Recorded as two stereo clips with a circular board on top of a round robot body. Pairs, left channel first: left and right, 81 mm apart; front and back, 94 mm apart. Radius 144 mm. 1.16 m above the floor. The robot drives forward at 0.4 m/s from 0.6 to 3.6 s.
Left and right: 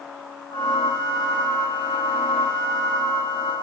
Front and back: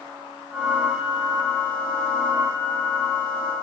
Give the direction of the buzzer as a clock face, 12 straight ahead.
No buzzer in this recording.